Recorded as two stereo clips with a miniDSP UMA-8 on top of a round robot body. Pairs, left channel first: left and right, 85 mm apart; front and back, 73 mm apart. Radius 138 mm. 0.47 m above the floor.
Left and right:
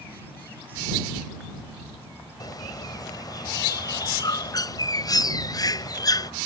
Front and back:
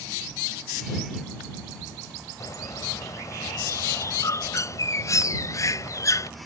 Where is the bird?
45° left.